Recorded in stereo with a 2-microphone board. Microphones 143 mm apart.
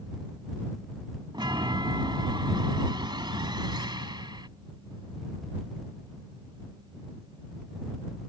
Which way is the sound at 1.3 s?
35° right (ahead or behind).